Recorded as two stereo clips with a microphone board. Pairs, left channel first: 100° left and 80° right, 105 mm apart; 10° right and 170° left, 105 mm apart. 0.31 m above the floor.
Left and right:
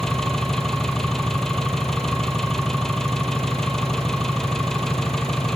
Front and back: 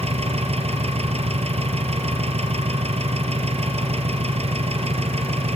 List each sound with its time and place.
0.0 s an engine running: 175° right, 3 m